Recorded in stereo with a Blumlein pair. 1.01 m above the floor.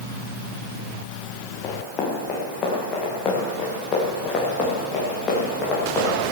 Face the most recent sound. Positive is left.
turn(degrees=25)